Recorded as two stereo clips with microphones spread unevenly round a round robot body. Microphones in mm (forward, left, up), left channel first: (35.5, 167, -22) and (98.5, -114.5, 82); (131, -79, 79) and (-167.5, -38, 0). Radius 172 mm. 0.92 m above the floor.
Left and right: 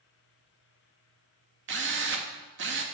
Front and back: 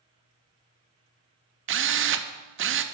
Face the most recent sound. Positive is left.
turn(degrees=-135)